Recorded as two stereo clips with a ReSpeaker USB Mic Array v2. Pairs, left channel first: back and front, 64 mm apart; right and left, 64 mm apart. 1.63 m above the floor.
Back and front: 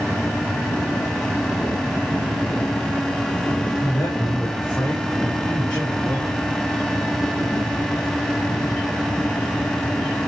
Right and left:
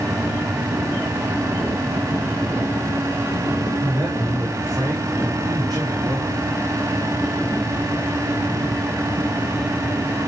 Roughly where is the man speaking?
Left.